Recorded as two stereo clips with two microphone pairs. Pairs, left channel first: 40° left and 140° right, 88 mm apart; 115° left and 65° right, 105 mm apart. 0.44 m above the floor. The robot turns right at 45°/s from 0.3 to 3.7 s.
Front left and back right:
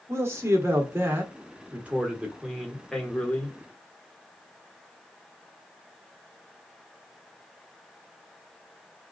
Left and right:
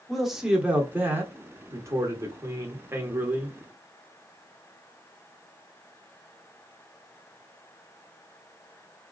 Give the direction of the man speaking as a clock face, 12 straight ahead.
5 o'clock.